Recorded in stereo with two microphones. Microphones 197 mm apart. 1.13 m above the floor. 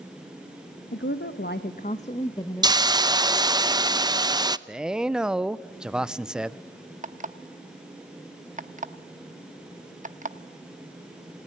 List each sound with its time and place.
0.9 s a woman speaking: 75° left (ahead or behind), 1.3 m; by 3.1 s centre (ahead or behind), 1.4 m
2.6 s a hiss: 20° right (ahead or behind), 0.6 m
4.7 s a man speaking: 5° right (ahead or behind), 0.6 m
7.0 s an alarm clock: 40° right (ahead or behind), 0.9 m